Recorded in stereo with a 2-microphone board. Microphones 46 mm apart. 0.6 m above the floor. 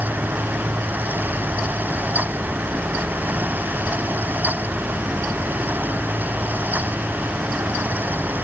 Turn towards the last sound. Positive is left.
No sound to turn to.